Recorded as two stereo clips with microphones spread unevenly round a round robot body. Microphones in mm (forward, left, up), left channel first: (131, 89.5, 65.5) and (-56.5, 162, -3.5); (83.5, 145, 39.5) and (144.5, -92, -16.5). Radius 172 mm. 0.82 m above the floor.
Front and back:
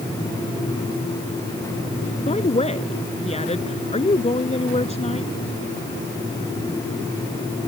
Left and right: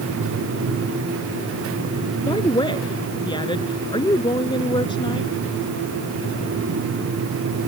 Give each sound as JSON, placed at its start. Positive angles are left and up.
{"t": 2.3, "sound": "a woman speaking", "azimuth_deg": 35}